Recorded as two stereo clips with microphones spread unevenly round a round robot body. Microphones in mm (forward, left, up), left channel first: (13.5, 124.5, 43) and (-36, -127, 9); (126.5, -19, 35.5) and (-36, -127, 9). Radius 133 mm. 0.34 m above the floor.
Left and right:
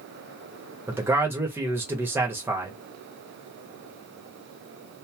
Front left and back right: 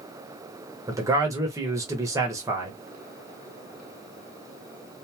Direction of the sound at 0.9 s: 150° right.